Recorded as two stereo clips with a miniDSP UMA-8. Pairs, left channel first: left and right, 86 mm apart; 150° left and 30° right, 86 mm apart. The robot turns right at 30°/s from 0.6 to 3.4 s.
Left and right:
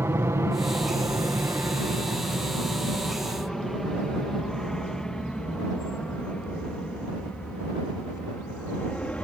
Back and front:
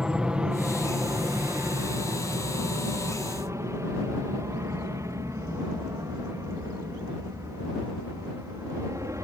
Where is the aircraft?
100° right; by 9.2 s 15° left.